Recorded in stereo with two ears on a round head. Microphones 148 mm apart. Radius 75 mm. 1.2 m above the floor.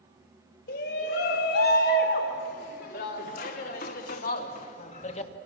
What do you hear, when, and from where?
0.7 s a shout: 75° left (ahead or behind), 4 m; by 5.3 s 40° left (ahead or behind), 1.7 m